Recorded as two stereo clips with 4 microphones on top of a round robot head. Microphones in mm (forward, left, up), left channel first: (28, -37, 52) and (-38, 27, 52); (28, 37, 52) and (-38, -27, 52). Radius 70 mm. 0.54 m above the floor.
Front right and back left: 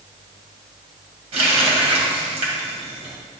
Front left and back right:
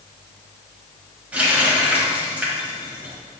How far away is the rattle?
I don't hear a rattle.